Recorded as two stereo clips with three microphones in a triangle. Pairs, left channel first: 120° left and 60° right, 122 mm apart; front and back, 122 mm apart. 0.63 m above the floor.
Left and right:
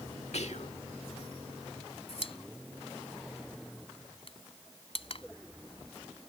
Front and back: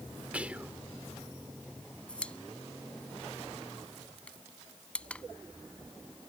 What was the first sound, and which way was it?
Whispering, 105° left.